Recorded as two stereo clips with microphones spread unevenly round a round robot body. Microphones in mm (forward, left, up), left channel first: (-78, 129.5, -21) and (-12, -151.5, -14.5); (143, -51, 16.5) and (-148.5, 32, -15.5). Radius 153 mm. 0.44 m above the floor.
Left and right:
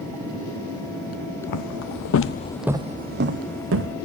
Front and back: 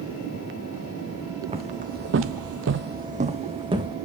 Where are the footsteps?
90° left, 1.1 m; by 4.0 s 115° right, 1.6 m.